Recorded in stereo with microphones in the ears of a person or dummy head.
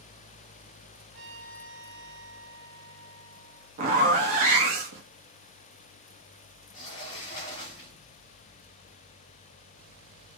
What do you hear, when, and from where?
1.1 s a trumpet: 70° right (ahead or behind), 1.0 m
3.8 s a zipper: 40° right (ahead or behind), 0.7 m
6.7 s a sliding door: 25° left (ahead or behind), 0.8 m